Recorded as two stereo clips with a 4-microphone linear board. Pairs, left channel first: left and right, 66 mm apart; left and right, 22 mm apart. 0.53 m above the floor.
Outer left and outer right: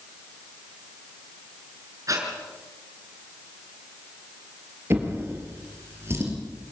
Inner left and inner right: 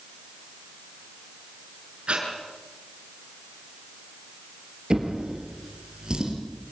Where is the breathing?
55° right (ahead or behind), 5.5 m.